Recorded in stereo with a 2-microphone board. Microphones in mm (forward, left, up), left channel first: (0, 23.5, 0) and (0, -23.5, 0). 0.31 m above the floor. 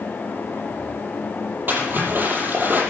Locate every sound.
1.7 s a splash: 45° right (ahead or behind), 6.5 m